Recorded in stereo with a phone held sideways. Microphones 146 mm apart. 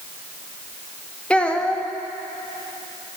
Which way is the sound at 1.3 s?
10° left (ahead or behind).